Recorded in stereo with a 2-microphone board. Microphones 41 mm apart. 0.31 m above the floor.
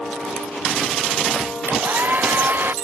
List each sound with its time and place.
1.7 s a hair dryer: 50° right (ahead or behind)